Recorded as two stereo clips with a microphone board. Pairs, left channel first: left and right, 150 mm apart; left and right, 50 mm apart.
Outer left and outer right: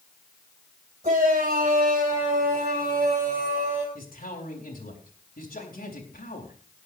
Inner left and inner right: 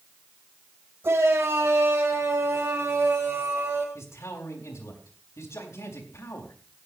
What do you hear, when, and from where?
1.0 s a shout: 55° right (ahead or behind), 3 m; by 3.9 s 45° right (ahead or behind), 2.5 m
4.0 s a man speaking: 75° left (ahead or behind), 4 m